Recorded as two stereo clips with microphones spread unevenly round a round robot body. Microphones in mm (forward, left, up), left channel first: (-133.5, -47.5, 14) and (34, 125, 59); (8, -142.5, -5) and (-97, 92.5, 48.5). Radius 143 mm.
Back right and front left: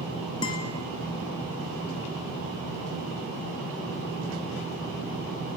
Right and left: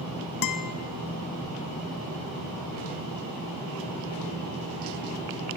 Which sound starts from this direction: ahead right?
A guitar, at 0.4 s.